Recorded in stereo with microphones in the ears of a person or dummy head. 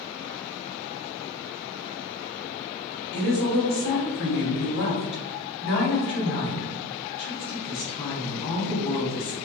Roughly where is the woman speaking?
Left.